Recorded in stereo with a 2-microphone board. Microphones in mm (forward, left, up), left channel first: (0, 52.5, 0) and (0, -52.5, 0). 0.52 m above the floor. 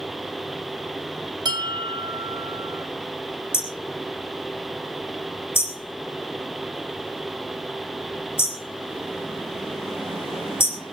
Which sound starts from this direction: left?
Hammering, at 3.5 s.